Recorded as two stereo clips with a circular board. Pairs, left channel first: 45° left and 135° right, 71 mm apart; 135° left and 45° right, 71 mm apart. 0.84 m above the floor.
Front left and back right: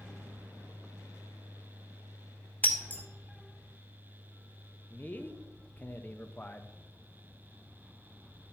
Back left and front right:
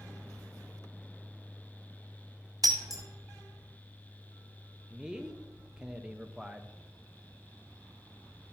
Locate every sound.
2.6 s breaking glass: 20° right, 1.4 m
4.9 s a man speaking: 25° left, 0.7 m